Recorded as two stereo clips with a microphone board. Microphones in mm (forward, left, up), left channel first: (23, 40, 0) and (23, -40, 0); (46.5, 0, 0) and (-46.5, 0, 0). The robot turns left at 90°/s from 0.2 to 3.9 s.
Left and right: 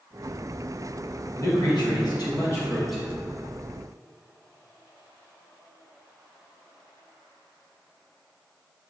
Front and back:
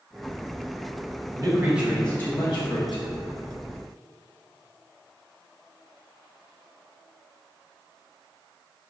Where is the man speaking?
140° left, 1.3 m; by 3.0 s 10° right, 1.3 m.